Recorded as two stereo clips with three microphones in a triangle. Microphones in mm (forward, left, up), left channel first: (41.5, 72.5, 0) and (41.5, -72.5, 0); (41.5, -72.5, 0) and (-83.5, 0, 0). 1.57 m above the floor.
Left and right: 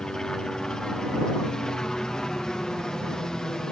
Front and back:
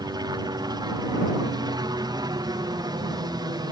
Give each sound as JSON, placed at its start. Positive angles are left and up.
{"t": 0.0, "sound": "a helicopter", "azimuth_deg": 170}